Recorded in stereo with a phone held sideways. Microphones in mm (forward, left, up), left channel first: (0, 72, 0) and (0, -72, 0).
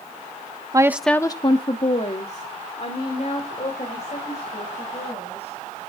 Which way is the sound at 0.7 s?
25° right (ahead or behind).